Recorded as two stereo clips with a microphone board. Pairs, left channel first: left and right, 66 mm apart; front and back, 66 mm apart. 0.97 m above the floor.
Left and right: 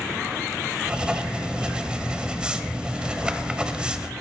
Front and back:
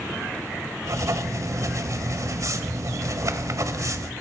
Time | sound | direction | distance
0.8 | writing | 160° right | 1.1 m